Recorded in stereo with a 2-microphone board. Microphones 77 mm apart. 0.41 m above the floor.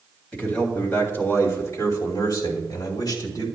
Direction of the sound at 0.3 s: 20° left (ahead or behind).